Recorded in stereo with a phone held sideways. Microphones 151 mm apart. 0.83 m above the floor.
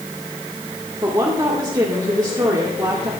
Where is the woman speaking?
30° right (ahead or behind), 2 m.